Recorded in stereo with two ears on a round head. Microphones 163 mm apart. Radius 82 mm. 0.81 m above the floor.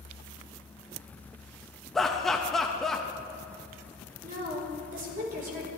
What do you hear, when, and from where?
1.9 s laughter: centre (ahead or behind), 0.5 m
4.2 s a woman speaking: 50° right (ahead or behind), 2 m